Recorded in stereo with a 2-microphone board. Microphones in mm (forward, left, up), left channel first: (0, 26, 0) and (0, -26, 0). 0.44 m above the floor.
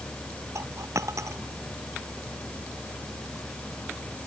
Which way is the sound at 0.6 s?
80° right.